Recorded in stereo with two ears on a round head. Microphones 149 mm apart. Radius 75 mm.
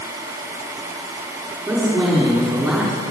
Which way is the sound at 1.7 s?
Centre (ahead or behind).